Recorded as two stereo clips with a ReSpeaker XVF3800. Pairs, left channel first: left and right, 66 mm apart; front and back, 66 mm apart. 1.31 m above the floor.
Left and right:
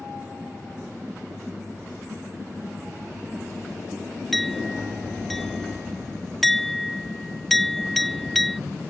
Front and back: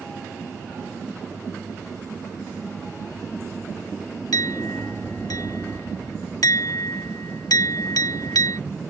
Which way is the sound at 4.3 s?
5° left.